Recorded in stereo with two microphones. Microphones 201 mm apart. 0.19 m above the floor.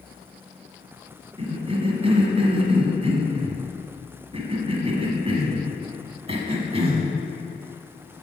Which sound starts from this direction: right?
A cough, at 1.4 s.